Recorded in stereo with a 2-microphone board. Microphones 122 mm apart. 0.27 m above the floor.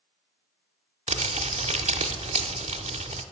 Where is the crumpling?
75° right (ahead or behind), 0.6 m.